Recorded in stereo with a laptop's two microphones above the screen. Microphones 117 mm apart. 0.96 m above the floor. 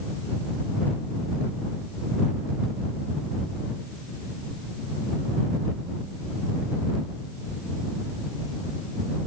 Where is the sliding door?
I don't hear a sliding door.